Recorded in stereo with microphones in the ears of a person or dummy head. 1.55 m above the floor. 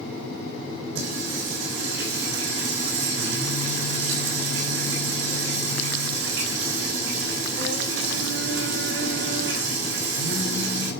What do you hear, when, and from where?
0.9 s singing: 70° right (ahead or behind), 6.5 m